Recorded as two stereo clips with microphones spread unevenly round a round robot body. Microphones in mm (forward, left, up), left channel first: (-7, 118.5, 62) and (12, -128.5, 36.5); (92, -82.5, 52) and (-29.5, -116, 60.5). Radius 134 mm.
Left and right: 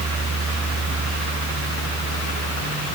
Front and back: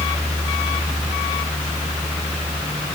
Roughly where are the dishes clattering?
No dishes clattering in this recording.